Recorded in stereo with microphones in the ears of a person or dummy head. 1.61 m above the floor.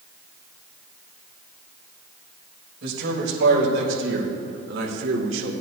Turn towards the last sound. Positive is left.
turn(degrees=-80)